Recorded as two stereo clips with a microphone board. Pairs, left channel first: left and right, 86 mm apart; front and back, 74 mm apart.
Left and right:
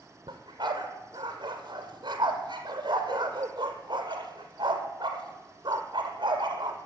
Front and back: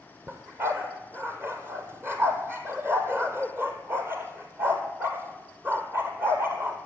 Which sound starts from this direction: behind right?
A dog barking, at 0.3 s.